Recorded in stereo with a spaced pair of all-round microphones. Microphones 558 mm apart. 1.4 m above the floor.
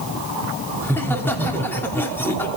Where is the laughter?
5° left (ahead or behind), 3 m.